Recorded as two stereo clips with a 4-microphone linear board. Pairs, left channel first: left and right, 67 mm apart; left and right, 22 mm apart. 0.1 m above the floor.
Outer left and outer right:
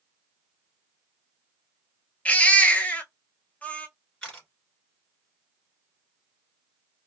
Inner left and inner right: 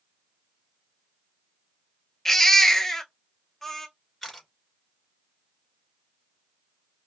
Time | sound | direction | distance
2.2 | a baby crying | 20° left (ahead or behind) | 0.6 m
4.2 | a camera shutter | 10° left (ahead or behind) | 1.8 m